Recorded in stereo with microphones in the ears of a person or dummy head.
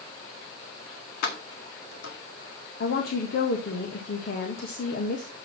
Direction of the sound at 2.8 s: 55° left (ahead or behind).